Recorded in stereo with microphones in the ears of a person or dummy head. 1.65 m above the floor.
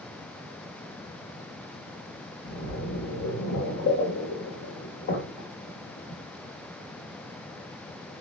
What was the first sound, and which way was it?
A splash, 55° left (ahead or behind).